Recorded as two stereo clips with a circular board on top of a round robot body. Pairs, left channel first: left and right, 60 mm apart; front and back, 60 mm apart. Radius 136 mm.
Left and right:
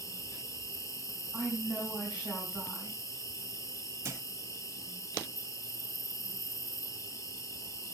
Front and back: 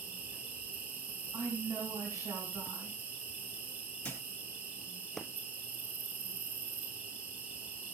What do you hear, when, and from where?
0.0 s an insect: 120° left, 7.5 m
1.3 s a woman speaking: 170° right, 5 m
4.0 s a thud: 70° right, 3.5 m